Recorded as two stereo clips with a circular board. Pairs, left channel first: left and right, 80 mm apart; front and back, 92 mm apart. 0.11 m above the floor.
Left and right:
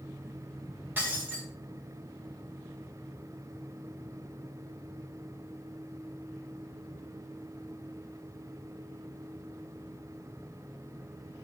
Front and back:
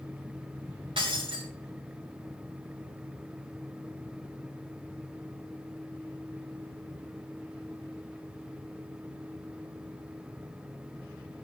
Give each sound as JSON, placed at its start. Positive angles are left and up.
{"t": 1.0, "sound": "breaking glass", "azimuth_deg": -155, "distance_m": 3.5}